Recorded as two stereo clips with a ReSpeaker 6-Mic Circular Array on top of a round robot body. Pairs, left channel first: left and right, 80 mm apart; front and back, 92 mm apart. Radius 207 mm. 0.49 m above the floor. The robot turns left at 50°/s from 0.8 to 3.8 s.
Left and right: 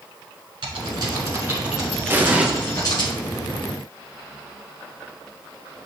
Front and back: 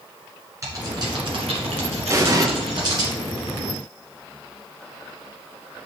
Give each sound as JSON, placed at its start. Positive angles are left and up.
{"t": 0.6, "sound": "typing on a keyboard", "azimuth_deg": -120, "distance_m": 1.6}
{"t": 2.1, "sound": "an explosion", "azimuth_deg": -140, "distance_m": 1.3}